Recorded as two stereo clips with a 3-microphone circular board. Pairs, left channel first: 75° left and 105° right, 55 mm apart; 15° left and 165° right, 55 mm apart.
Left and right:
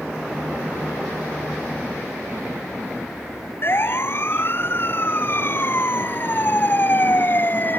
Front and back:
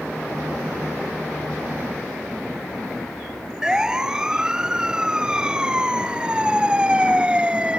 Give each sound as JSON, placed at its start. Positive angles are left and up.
{"t": 3.6, "sound": "a siren", "azimuth_deg": 115}